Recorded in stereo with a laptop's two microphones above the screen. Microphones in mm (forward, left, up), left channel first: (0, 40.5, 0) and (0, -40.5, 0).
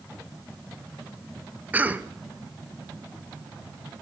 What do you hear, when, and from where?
1.7 s a cough: 20° right (ahead or behind), 1.1 m